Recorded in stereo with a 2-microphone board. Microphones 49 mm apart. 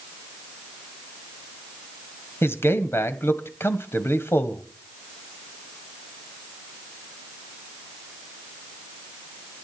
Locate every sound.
2.4 s a man speaking: 60° left (ahead or behind), 1.7 m